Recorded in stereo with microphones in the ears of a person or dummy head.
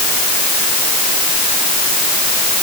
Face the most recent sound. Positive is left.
No sound to turn to.